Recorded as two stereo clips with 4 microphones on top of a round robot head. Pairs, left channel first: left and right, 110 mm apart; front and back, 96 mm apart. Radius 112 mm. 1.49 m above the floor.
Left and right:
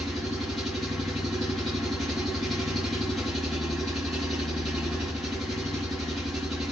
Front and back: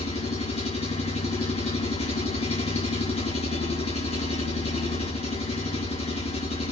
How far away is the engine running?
About 8.5 m.